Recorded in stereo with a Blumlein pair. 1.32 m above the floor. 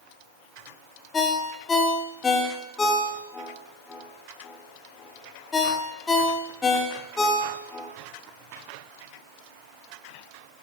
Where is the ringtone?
15° left, 1.5 m.